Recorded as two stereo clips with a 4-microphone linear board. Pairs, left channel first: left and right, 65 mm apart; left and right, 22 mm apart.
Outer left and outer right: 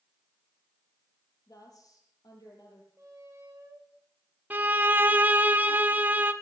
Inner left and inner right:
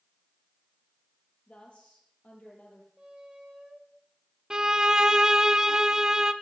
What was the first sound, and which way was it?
A woman speaking, 65° left (ahead or behind).